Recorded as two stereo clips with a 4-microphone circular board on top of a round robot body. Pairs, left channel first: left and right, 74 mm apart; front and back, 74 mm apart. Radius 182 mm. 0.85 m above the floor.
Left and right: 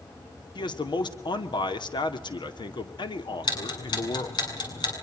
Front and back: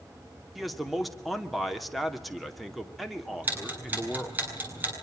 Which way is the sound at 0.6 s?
90° left.